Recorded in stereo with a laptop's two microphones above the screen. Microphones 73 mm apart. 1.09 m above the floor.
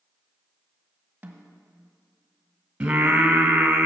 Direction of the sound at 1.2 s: 25° right (ahead or behind).